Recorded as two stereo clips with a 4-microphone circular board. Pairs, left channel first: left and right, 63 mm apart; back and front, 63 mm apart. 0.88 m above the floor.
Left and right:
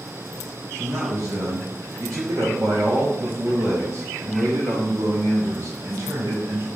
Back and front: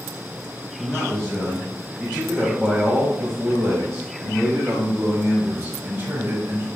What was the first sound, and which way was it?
A man speaking, 105° right.